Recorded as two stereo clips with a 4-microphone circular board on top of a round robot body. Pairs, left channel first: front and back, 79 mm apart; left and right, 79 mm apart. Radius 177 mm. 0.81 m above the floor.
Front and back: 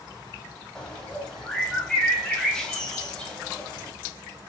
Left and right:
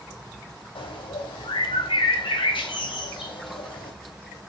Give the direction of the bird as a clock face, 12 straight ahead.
9 o'clock.